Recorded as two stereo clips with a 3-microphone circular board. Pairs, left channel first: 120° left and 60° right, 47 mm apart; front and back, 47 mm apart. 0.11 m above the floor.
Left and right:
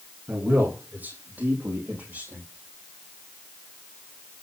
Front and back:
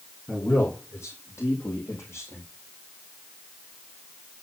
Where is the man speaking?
10° right, 5 m; by 2.4 s 25° right, 4 m.